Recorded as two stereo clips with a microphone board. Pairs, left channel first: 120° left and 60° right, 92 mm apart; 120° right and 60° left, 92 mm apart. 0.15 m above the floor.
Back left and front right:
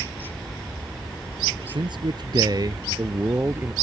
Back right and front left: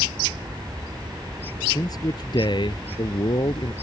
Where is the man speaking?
75° right; by 3.7 s 125° right.